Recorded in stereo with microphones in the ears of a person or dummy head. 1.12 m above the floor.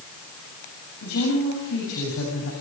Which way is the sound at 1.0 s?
85° left.